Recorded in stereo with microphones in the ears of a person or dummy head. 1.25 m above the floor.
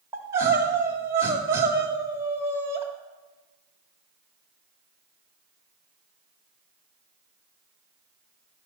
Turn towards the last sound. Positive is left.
turn(degrees=-15)  # may be behind; listen again after turning